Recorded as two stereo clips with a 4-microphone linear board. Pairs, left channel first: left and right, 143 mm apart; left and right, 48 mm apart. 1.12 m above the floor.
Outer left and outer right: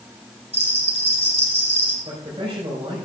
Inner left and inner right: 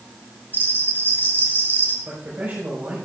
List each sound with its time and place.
0.5 s a bell: 40° left (ahead or behind), 2.5 m
2.0 s a man speaking: 40° right (ahead or behind), 5 m